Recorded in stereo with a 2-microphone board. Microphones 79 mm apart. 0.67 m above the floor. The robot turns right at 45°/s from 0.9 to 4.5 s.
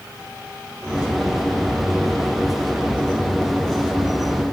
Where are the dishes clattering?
I don't hear dishes clattering.